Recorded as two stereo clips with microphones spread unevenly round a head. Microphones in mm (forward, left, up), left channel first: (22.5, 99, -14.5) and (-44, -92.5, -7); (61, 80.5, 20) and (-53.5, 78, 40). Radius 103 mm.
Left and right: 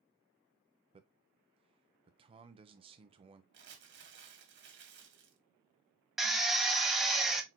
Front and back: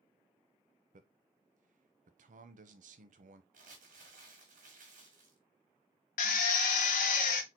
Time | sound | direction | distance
0.9 | a man speaking | 175° right | 0.7 m
3.5 | crumpling | 145° right | 1.5 m
6.2 | a drill | 20° right | 0.6 m